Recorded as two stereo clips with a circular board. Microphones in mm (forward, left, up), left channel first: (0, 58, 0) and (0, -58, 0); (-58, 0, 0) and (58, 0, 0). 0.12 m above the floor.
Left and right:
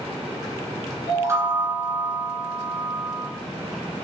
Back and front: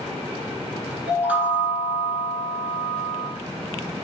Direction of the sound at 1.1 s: 60° right.